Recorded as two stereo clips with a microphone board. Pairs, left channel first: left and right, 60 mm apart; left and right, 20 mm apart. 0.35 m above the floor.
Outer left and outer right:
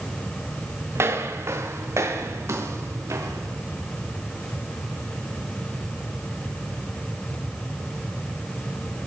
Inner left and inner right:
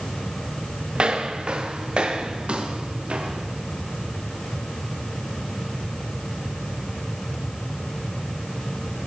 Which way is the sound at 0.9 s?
50° right (ahead or behind).